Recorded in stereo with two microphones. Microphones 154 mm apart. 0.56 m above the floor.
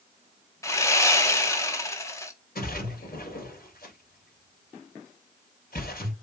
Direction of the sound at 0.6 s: 20° left (ahead or behind).